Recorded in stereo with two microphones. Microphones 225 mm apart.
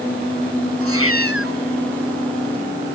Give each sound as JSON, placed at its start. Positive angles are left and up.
{"t": 0.8, "sound": "a cat meowing", "side_deg": -80}